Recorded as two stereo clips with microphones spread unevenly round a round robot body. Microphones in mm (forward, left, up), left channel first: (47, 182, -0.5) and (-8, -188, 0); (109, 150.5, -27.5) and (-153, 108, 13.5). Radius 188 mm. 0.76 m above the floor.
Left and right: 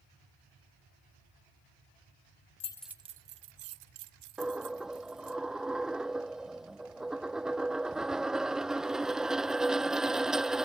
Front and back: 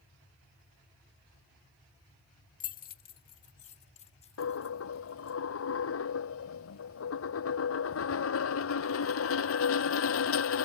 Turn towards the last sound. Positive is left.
turn(degrees=-10)